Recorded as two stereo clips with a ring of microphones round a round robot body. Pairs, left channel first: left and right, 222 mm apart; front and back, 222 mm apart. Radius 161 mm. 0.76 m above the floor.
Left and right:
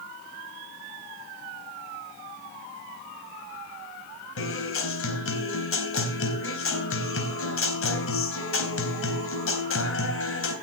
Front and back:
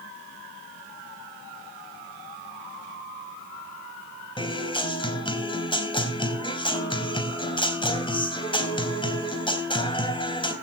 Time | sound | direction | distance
4.4 | a guitar | 70° left | 4 m